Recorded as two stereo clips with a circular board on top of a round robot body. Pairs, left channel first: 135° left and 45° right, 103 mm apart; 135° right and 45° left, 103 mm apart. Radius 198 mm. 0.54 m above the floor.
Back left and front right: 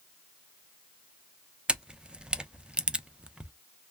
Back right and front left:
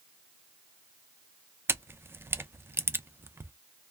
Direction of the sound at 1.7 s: 20° left.